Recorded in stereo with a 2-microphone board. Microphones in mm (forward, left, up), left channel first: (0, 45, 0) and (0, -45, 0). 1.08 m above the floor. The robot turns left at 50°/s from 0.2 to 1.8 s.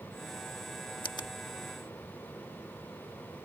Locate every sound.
1.0 s a finger snap: 65° left (ahead or behind); by 1.3 s 50° left (ahead or behind)